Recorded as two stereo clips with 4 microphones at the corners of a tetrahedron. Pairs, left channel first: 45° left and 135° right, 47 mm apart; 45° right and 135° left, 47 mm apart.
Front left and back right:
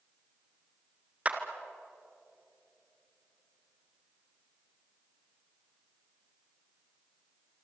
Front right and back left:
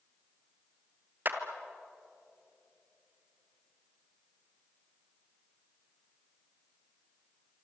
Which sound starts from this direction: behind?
A clap, at 1.2 s.